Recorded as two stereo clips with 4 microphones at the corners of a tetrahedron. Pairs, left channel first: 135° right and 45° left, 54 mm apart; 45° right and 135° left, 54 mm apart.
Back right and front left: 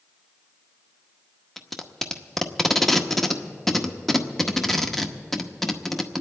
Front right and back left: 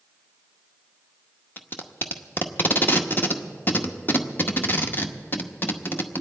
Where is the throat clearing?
I don't hear throat clearing.